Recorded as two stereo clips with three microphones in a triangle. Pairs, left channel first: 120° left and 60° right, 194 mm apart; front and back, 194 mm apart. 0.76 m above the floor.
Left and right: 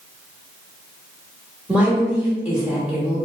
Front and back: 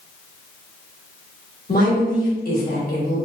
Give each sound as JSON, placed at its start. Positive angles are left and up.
{"t": 1.7, "sound": "a woman speaking", "azimuth_deg": 25, "distance_m": 1.2}